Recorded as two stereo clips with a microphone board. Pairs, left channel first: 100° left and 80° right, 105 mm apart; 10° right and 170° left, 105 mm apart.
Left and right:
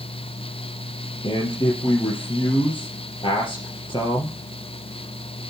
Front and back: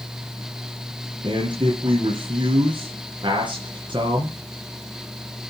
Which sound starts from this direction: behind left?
A man speaking, at 1.2 s.